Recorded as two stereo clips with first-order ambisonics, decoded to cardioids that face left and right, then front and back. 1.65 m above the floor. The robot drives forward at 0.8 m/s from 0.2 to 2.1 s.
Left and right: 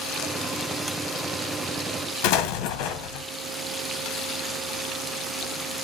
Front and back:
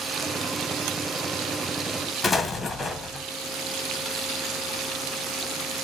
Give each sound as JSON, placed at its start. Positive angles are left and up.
{"t": 2.2, "sound": "an explosion", "azimuth_deg": 80, "distance_m": 1.5}